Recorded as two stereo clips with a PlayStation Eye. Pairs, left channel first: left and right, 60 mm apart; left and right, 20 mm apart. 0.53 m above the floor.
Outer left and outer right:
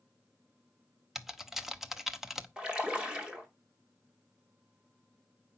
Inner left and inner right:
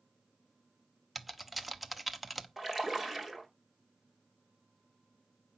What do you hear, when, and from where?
1.1 s typing on a keyboard: 5° right (ahead or behind), 0.9 m
2.6 s a splash: 20° right (ahead or behind), 2.5 m